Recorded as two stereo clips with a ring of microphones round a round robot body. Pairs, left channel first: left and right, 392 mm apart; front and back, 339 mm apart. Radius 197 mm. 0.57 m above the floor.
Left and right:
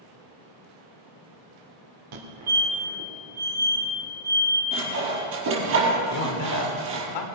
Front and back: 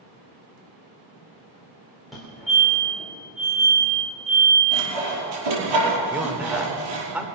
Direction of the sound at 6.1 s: 95° left.